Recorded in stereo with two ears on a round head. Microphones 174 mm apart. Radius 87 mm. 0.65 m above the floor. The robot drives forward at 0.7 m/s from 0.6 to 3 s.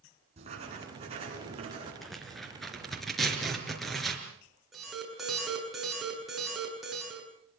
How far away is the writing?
About 9 m.